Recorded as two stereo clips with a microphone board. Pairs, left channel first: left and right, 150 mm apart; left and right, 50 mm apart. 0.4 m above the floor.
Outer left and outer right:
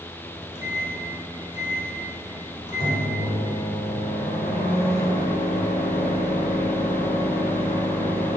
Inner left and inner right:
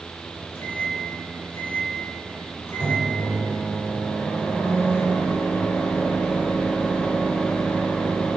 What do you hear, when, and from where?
0.2 s a microwave: 45° left (ahead or behind), 1.5 m